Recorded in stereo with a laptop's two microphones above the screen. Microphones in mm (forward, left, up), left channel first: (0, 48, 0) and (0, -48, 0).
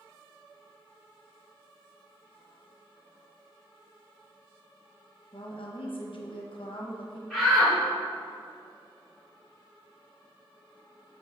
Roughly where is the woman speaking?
Left.